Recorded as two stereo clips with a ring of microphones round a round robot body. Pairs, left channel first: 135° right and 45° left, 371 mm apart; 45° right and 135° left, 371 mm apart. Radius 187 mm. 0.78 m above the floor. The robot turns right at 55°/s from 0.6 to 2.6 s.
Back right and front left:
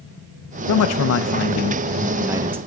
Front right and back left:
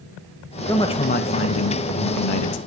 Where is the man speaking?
125° right, 0.6 m; by 2.6 s 20° right, 0.6 m.